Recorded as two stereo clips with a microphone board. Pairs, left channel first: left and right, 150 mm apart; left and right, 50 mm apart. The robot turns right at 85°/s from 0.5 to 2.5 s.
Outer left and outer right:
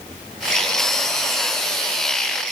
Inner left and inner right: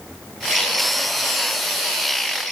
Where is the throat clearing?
I don't hear throat clearing.